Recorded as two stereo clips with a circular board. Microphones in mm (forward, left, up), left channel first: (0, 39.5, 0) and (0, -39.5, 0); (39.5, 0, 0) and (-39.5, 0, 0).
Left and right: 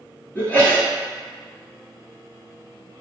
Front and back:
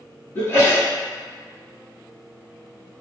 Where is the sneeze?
35° left, 1.3 m.